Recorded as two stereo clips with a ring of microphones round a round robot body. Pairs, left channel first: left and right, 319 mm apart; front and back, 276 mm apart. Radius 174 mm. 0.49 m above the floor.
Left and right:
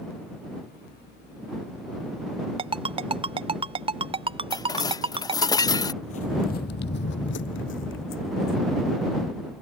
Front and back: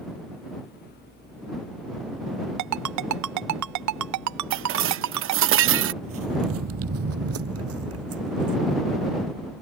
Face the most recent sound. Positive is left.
turn(degrees=145)